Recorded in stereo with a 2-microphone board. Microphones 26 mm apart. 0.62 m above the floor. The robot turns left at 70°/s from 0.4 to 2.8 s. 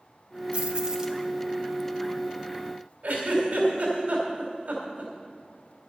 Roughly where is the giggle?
Right.